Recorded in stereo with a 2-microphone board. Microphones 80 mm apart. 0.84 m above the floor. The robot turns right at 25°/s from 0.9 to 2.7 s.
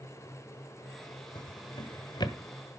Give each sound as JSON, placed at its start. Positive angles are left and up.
{"t": 1.4, "sound": "a drawer", "side_deg": 70, "distance_m": 1.1}